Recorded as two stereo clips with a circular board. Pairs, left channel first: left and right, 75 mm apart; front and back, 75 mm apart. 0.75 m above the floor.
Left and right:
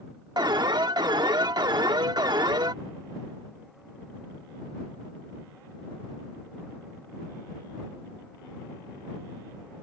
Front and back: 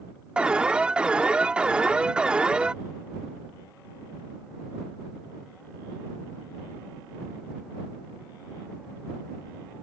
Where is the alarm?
105° right.